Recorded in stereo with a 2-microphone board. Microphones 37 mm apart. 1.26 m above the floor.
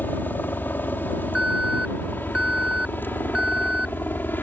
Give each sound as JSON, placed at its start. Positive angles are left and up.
{"t": 0.0, "sound": "a helicopter", "side_deg": 65}
{"t": 1.4, "sound": "an alarm", "side_deg": -20}